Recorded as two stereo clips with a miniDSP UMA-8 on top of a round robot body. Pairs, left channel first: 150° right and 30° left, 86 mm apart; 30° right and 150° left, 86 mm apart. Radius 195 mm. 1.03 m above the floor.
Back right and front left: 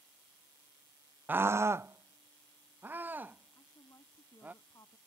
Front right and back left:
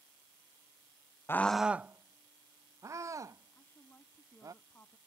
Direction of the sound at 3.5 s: 95° right.